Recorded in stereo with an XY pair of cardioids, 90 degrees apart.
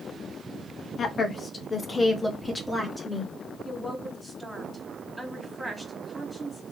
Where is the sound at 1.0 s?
55° left, 1.3 m; by 3.3 s 5° left, 2 m.